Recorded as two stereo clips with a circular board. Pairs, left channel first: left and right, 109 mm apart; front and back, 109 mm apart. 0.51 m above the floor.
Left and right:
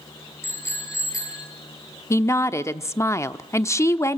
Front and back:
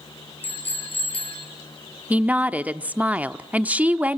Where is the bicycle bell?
25° left, 7.5 m; by 1.5 s 35° left, 6.5 m.